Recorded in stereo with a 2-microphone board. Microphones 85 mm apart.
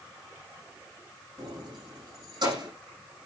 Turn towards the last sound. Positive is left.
turn(degrees=-60)  # may be behind; listen again after turning